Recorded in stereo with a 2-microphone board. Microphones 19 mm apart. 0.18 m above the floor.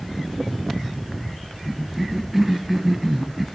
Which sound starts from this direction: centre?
A cough, at 1.6 s.